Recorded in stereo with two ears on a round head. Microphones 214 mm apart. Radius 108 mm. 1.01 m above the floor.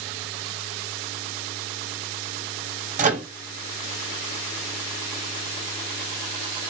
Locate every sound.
3.0 s a microwave: 30° right (ahead or behind), 0.8 m